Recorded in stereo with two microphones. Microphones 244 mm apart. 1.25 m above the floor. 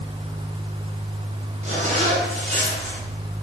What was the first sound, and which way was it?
A zipper, 30° right (ahead or behind).